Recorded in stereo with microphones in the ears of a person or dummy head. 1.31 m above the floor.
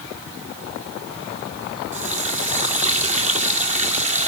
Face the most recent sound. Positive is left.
turn(degrees=-45)  # may be behind; listen again after turning